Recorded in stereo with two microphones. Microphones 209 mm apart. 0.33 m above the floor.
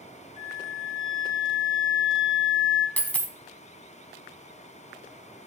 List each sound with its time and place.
0.4 s a flute: 30° left (ahead or behind), 1.6 m
3.0 s a dropped coin: 5° left (ahead or behind), 0.7 m